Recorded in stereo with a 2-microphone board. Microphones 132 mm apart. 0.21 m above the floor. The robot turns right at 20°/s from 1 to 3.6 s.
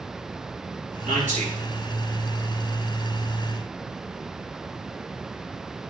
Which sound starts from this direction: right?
A man speaking, at 1.1 s.